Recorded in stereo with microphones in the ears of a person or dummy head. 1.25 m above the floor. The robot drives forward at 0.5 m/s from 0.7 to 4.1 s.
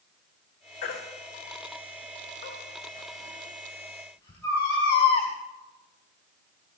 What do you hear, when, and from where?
0.8 s a baby crying: 45° left (ahead or behind), 1.8 m; by 5.3 s 25° left (ahead or behind), 3 m